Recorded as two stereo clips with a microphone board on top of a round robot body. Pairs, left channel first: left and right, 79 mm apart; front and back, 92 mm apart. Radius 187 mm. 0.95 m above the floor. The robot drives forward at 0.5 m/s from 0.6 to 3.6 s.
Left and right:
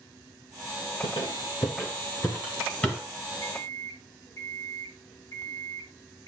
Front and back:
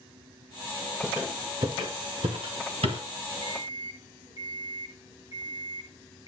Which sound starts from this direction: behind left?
An alarm clock, at 3.4 s.